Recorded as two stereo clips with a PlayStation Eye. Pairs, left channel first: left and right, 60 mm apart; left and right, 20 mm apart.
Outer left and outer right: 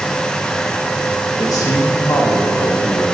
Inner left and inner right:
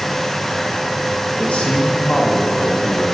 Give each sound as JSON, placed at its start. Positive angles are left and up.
{"t": 1.4, "sound": "a man speaking", "side_deg": 75, "distance_m": 2.0}